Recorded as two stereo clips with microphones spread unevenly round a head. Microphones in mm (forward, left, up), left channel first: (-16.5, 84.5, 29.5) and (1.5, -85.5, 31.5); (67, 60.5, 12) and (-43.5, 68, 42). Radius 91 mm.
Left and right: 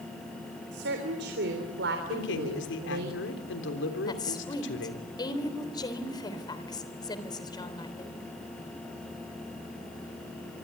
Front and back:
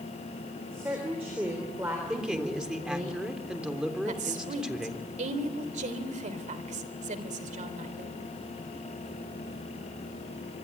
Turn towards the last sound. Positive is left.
turn(degrees=165)